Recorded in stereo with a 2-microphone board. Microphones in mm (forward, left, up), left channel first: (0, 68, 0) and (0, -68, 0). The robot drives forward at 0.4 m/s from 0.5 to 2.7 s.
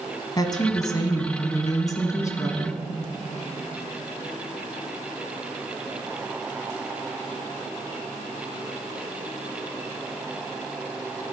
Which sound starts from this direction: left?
A woman speaking, at 0.4 s.